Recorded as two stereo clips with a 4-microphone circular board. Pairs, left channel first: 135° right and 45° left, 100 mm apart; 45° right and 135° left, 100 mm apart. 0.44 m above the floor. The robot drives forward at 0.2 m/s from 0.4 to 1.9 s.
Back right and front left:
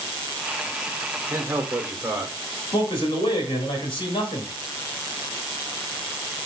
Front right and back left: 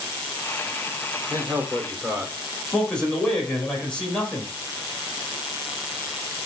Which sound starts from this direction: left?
A man speaking, at 1.3 s.